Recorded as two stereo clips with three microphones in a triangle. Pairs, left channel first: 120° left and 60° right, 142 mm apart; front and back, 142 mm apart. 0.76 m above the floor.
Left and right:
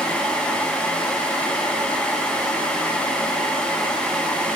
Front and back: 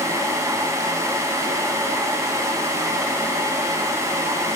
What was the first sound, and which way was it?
Only background noise.